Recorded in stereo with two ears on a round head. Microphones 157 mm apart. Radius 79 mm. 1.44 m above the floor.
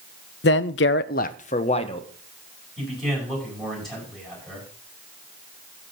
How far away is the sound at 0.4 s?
About 0.6 m.